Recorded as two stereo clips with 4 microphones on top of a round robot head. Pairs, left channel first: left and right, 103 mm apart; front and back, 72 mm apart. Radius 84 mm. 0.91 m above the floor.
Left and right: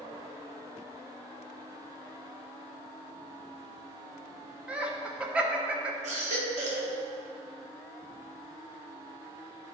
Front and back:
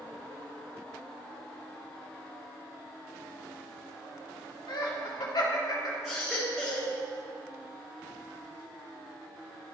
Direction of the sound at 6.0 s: 90° right.